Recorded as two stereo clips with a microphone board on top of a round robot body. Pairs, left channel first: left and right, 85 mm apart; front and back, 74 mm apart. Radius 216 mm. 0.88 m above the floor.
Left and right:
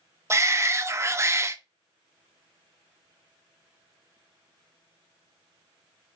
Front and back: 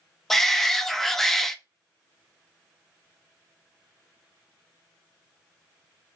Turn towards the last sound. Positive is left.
turn(degrees=-85)